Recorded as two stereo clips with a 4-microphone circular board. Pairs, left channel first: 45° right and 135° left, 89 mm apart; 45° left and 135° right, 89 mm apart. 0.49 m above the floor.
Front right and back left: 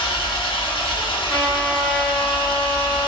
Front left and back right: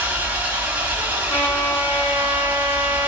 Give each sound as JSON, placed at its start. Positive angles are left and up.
{"t": 0.0, "sound": "an engine running", "azimuth_deg": -65, "distance_m": 0.9}
{"t": 1.3, "sound": "a trumpet", "azimuth_deg": 30, "distance_m": 2.0}